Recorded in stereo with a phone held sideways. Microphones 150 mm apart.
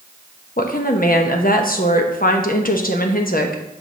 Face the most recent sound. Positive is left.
turn(degrees=70)  # may be behind; listen again after turning